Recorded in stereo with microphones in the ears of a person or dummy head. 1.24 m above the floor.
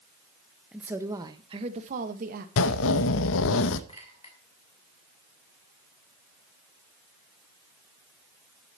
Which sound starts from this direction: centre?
A woman speaking, at 0.7 s.